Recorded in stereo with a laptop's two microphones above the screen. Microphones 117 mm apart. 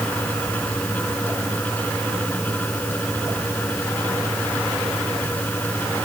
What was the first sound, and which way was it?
A fan, 15° left (ahead or behind).